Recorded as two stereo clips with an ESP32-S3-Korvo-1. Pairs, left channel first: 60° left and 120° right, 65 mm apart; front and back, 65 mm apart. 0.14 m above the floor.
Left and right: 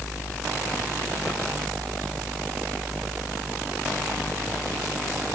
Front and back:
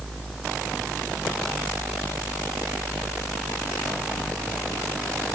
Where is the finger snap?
No finger snap in this recording.